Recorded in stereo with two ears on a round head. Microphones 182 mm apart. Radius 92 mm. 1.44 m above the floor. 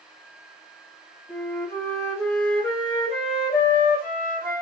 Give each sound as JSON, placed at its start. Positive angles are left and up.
{"t": 1.3, "sound": "a flute", "side_deg": 10, "distance_m": 1.7}